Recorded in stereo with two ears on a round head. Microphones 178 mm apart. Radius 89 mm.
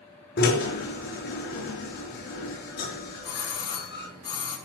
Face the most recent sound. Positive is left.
turn(degrees=20)  # may be behind; listen again after turning